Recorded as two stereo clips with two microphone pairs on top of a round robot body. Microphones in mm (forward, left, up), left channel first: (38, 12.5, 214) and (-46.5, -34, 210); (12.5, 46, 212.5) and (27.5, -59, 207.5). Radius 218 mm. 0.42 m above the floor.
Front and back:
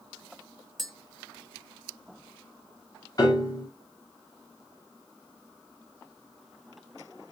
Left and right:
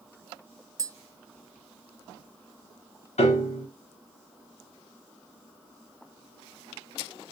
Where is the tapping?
65° right, 1.2 m.